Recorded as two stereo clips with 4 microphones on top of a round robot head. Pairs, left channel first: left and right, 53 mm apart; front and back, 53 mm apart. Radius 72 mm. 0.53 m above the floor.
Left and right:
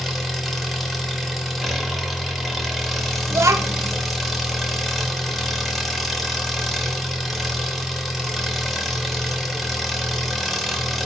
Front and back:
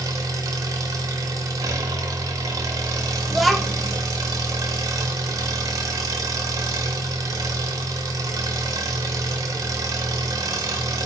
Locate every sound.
0.0 s an engine running: straight behind, 0.9 m
3.3 s a child speaking: 90° right, 0.6 m